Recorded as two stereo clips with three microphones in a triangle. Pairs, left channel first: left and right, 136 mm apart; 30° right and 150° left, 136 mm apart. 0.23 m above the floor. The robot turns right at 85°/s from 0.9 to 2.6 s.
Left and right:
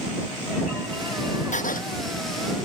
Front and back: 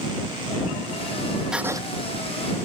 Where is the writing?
65° left; by 1.8 s 90° left.